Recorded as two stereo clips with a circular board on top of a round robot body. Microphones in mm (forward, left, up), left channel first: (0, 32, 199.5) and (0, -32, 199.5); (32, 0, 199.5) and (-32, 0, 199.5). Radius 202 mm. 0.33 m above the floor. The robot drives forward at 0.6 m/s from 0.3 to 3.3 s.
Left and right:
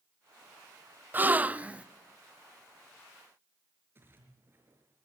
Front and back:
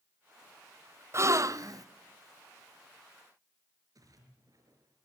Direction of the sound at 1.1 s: 145° right.